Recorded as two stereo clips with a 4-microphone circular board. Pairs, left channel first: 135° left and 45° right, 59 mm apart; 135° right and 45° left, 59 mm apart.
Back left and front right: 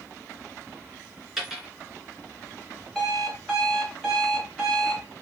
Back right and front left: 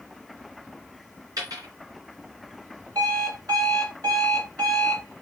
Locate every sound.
1.4 s a dropped coin: 40° left, 2 m
3.0 s an alarm clock: 50° left, 3 m